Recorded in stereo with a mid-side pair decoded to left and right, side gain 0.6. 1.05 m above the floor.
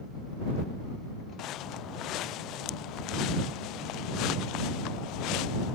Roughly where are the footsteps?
Ahead left.